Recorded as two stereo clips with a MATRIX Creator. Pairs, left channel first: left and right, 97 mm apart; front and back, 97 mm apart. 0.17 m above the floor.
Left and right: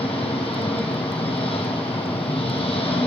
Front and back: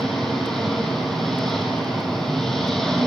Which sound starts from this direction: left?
An engine running, at 0.0 s.